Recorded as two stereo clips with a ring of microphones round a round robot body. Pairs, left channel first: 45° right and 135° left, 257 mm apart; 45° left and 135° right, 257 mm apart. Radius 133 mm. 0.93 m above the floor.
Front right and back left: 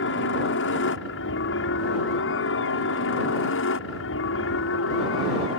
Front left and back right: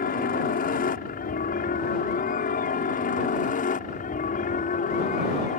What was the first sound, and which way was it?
A helicopter, 10° right.